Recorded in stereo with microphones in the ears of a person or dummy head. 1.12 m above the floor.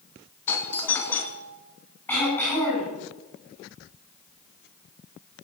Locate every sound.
0.5 s a doorbell: 20° left (ahead or behind), 2.5 m
2.1 s throat clearing: 10° left (ahead or behind), 9.5 m